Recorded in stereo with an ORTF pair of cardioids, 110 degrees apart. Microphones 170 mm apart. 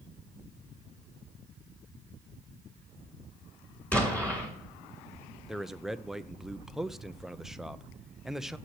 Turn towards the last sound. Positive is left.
turn(degrees=0)